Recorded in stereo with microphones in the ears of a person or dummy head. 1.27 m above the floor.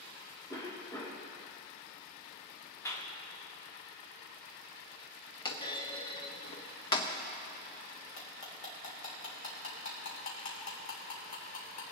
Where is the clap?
15° left (ahead or behind), 1.9 m.